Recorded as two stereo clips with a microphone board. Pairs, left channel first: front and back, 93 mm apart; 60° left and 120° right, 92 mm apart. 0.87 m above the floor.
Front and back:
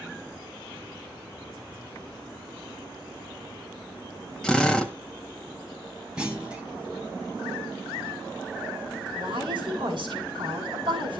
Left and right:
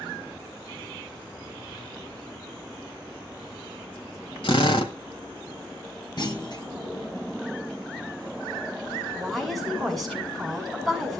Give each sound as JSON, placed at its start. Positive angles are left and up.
{"t": 4.4, "sound": "a drill", "azimuth_deg": 80, "distance_m": 1.8}
{"t": 6.2, "sound": "a clunk", "azimuth_deg": 100, "distance_m": 3.0}
{"t": 9.2, "sound": "a woman speaking", "azimuth_deg": 150, "distance_m": 7.0}